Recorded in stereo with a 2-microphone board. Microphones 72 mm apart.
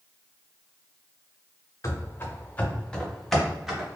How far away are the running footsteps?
About 1.0 m.